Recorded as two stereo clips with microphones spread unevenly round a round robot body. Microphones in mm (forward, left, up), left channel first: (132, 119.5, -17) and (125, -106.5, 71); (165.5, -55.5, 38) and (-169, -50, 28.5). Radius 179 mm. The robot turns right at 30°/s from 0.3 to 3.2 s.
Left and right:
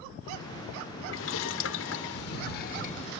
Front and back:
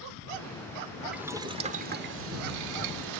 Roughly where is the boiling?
Left.